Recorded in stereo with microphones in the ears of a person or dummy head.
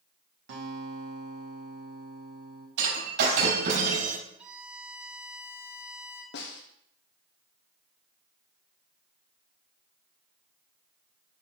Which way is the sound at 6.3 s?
60° left (ahead or behind).